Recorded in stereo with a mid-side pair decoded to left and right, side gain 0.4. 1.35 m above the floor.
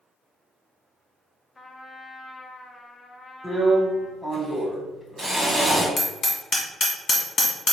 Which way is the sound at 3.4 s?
5° right.